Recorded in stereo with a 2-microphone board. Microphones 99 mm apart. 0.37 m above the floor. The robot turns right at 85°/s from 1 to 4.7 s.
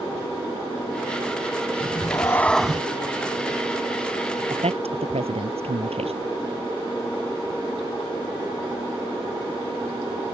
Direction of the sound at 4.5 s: 65° right (ahead or behind).